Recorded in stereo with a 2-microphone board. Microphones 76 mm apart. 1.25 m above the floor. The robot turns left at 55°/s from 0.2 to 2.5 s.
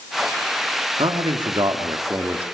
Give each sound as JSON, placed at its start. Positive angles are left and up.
{"t": 1.0, "sound": "a man speaking", "azimuth_deg": -85, "distance_m": 2.5}